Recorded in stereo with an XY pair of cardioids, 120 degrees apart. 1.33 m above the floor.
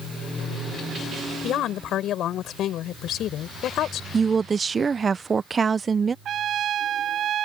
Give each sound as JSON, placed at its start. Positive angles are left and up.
{"t": 1.4, "sound": "a woman speaking", "azimuth_deg": 65}
{"t": 4.1, "sound": "a woman speaking", "azimuth_deg": -25}
{"t": 6.2, "sound": "a trumpet", "azimuth_deg": -55}